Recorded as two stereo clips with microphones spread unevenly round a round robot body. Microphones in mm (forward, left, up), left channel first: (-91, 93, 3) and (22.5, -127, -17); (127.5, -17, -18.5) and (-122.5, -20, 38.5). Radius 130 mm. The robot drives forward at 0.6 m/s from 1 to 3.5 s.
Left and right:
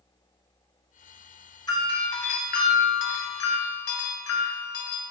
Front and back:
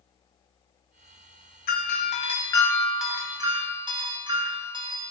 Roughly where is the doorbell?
Ahead left.